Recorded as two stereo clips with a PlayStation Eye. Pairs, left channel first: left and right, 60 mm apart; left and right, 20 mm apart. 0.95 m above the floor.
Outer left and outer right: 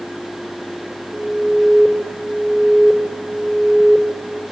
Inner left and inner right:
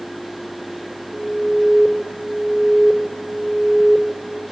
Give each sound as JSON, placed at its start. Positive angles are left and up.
{"t": 1.1, "sound": "an alarm", "side_deg": -40, "distance_m": 7.5}